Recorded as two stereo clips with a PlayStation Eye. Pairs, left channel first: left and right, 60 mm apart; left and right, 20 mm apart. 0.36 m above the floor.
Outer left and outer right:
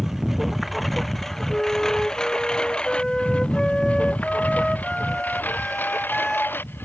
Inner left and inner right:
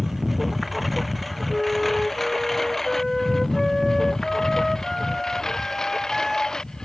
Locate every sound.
0.0 s a lawn mower: 5° right (ahead or behind); by 6.9 s 35° left (ahead or behind)
1.5 s a flute: 5° left (ahead or behind)